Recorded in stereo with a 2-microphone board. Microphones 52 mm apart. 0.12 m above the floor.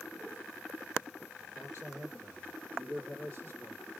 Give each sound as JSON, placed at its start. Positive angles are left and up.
{"t": 1.6, "sound": "a man speaking", "side_deg": -60, "distance_m": 3.0}